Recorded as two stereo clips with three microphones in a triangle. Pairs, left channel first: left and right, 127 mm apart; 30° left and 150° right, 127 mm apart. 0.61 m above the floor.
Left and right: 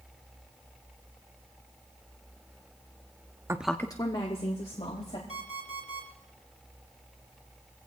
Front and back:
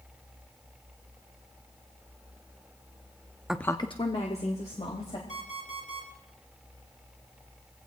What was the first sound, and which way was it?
A woman speaking, 75° right.